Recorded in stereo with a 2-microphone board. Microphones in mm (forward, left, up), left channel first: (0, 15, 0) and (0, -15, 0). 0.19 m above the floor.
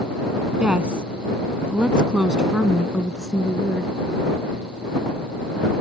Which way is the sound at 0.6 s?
35° right (ahead or behind).